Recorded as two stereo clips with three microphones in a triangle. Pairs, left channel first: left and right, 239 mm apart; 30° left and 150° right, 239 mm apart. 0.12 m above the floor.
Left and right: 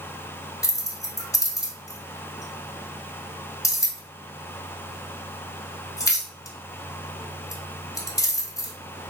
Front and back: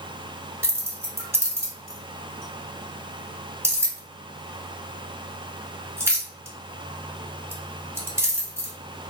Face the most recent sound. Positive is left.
turn(degrees=145)